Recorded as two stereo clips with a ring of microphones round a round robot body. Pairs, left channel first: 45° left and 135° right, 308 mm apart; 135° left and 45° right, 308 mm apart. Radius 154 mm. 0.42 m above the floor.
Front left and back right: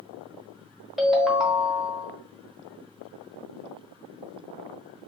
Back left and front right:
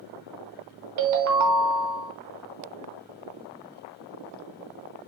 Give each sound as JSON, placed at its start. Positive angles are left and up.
{"t": 1.0, "sound": "a ringtone", "azimuth_deg": -45, "distance_m": 0.9}